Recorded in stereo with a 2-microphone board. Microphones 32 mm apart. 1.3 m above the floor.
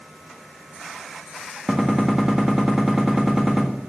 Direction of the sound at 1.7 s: 15° right (ahead or behind).